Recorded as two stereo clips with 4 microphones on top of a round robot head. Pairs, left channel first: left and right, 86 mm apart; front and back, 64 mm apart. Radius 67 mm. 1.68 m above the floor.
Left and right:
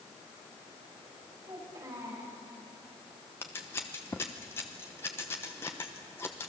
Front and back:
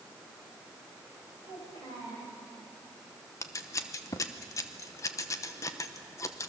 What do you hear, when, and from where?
1.4 s a child speaking: 25° right, 8.5 m
3.4 s scissors: 20° left, 0.9 m